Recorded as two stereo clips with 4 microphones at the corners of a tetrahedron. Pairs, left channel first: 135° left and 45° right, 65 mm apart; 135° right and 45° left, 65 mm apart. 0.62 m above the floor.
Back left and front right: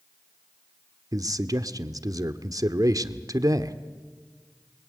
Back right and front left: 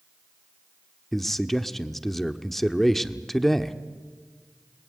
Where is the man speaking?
50° right, 1.2 m.